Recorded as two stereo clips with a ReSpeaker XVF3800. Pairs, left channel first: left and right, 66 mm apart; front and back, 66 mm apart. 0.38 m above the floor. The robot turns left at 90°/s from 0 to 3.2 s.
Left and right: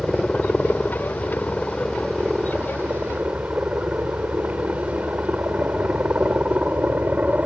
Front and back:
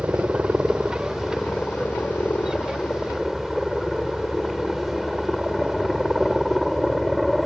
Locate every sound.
0.0 s a helicopter: 165° right; by 7.5 s 90° right